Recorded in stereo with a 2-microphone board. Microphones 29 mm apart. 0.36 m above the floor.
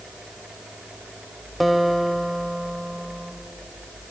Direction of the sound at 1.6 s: Centre (ahead or behind).